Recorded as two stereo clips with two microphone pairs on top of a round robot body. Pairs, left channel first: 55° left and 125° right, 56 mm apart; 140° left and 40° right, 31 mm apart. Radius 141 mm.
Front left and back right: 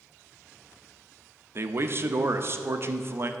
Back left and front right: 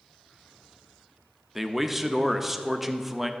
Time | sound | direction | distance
1.6 | a man speaking | 140° right | 0.8 m